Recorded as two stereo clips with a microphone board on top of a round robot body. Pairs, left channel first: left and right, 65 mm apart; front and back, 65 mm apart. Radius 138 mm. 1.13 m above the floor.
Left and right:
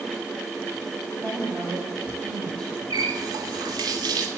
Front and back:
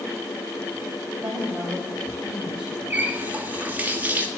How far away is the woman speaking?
About 7.5 m.